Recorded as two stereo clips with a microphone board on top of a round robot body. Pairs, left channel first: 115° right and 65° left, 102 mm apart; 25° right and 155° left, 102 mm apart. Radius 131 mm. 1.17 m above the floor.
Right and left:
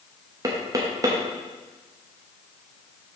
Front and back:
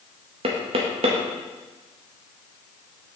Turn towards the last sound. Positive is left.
turn(degrees=125)